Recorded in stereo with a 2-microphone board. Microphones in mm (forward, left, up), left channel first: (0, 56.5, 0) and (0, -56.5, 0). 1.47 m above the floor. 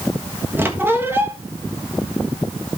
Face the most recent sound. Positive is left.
turn(degrees=-20)  # may be behind; listen again after turning